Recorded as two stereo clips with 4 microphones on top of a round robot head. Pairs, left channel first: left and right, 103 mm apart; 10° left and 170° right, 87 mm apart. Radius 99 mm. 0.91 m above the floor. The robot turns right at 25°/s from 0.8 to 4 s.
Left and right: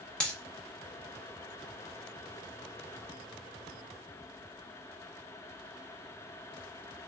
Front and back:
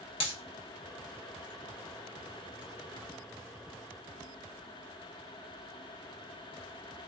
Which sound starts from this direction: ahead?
A dropped coin, at 0.2 s.